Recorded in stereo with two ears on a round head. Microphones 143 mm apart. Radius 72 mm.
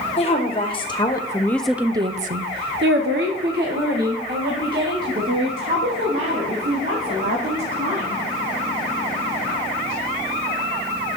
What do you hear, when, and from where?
0.2 s a woman speaking: 40° left (ahead or behind), 1.4 m; by 8.2 s 60° right (ahead or behind), 4.5 m